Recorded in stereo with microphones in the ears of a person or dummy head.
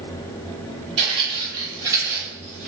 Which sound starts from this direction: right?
Footsteps, at 1.0 s.